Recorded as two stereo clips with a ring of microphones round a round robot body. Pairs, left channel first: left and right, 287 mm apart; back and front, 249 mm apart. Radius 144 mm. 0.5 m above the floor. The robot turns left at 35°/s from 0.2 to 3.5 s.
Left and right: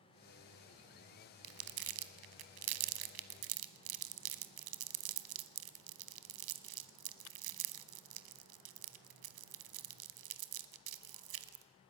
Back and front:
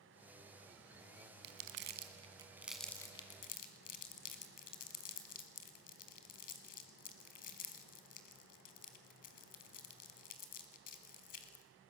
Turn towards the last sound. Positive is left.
turn(degrees=-115)